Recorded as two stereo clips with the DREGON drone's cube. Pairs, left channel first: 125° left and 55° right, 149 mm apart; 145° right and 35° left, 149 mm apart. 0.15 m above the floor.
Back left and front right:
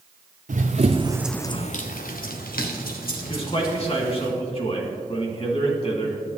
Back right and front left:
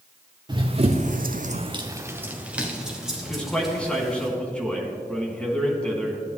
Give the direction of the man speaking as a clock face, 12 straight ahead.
7 o'clock.